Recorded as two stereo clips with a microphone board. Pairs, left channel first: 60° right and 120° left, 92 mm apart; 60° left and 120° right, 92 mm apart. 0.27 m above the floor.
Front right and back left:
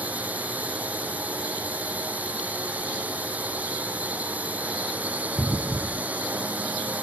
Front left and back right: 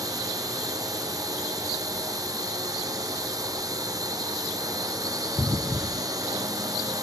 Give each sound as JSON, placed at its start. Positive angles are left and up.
{"t": 0.0, "sound": "a drone", "azimuth_deg": -165}